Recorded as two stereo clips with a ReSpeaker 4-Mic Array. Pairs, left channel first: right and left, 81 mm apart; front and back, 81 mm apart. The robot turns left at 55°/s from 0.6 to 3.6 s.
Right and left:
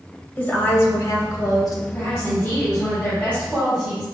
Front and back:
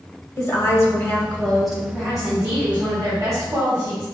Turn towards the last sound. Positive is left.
turn(degrees=-175)